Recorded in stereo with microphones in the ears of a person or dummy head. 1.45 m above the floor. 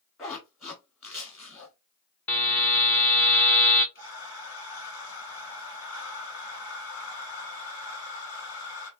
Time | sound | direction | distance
0.2 | a zipper | 10° left (ahead or behind) | 1.2 m
2.3 | a buzzer | 10° left (ahead or behind) | 0.5 m
4.0 | breathing | 65° left (ahead or behind) | 2 m